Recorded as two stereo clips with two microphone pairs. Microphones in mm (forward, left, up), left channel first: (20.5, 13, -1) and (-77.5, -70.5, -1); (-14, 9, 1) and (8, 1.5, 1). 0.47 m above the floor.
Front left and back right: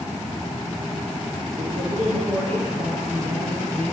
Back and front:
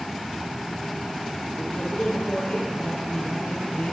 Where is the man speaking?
175° right, 9.5 m.